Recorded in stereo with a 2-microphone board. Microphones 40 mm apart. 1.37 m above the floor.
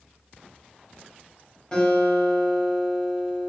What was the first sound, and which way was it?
A guitar, 25° left (ahead or behind).